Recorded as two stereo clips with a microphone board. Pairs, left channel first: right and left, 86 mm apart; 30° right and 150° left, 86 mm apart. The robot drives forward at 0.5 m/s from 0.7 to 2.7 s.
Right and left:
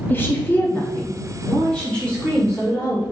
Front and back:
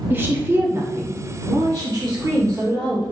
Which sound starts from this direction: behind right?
A woman speaking, at 0.1 s.